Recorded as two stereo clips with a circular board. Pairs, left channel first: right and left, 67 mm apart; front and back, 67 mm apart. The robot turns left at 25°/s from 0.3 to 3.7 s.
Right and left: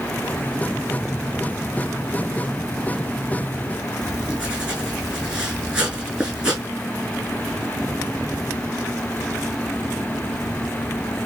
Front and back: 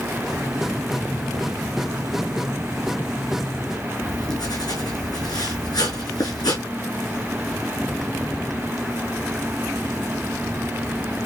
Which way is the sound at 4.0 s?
15° left.